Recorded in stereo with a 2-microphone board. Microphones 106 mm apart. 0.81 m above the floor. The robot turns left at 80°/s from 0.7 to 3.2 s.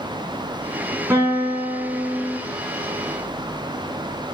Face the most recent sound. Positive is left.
turn(degrees=175)